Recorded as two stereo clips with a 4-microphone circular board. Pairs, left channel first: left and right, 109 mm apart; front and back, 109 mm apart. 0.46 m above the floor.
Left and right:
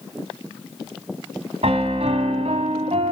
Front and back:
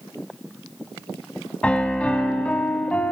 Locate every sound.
1.6 s a piano: 80° right, 1.8 m